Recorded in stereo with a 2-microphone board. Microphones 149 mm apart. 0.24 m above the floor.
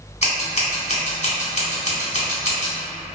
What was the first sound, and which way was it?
Scissors, 50° left (ahead or behind).